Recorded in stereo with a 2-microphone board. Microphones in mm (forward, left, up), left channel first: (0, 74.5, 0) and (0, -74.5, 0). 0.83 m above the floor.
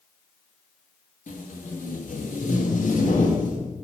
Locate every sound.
1.3 s tape being pulled: 60° left (ahead or behind), 1.2 m